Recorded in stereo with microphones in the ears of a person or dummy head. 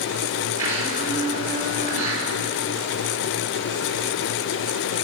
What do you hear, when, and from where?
0.6 s a blender: 20° right (ahead or behind), 7 m